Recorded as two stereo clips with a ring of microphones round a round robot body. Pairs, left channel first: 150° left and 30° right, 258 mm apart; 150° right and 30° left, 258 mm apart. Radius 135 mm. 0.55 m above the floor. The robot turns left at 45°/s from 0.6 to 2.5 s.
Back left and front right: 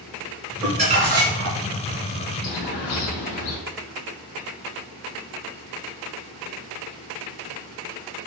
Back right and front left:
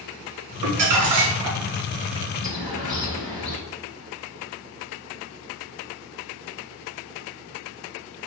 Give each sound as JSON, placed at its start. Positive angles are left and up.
{"t": 0.6, "sound": "crumpling", "azimuth_deg": 45, "distance_m": 1.6}
{"t": 2.4, "sound": "a bird", "azimuth_deg": 165, "distance_m": 1.4}